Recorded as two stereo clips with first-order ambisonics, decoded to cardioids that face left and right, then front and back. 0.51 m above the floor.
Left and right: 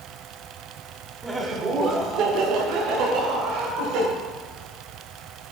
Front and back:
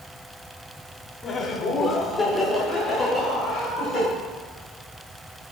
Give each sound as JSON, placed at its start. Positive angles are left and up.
{"t": 1.2, "sound": "laughter", "azimuth_deg": -5, "distance_m": 0.7}